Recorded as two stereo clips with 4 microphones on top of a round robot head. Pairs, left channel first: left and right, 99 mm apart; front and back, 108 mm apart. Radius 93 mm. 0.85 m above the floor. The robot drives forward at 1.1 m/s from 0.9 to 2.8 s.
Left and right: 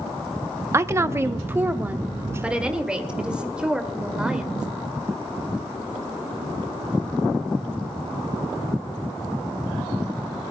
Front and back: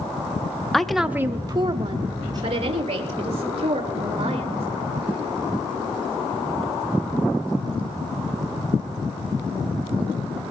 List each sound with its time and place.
0.7 s a woman speaking: 85° right, 0.8 m; by 4.7 s 170° right, 2 m